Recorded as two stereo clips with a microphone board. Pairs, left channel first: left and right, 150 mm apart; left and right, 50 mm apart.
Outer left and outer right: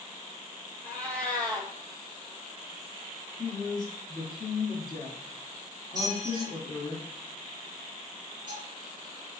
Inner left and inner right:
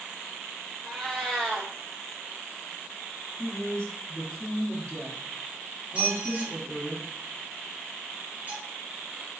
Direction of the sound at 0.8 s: 10° left (ahead or behind).